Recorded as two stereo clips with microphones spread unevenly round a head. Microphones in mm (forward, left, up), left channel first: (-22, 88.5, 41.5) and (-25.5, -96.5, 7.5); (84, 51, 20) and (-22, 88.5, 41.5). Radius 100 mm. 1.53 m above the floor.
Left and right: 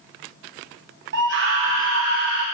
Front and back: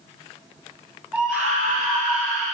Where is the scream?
110° right, 2.5 m; by 2.4 s 100° right, 3 m.